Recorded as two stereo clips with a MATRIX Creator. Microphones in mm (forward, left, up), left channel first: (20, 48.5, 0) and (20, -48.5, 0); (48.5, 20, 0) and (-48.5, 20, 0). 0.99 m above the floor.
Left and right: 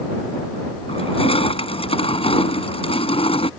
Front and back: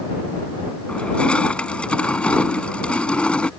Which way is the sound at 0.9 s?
80° left.